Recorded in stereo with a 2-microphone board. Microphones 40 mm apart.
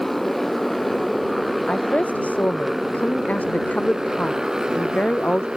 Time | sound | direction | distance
0.0 | a motorcycle | 5° left (ahead or behind) | ?
1.7 | a woman speaking | 35° left (ahead or behind) | ?